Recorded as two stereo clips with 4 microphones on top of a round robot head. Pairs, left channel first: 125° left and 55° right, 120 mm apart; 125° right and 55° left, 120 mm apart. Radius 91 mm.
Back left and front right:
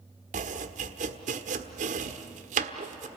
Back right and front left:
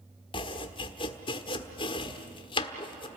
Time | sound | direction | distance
0.3 | chopping | 75° right | 1.3 m